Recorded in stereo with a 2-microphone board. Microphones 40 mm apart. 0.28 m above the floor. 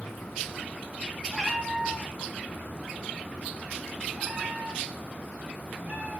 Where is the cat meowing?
5° right (ahead or behind), 6 m; by 6.2 s 40° right (ahead or behind), 7.5 m.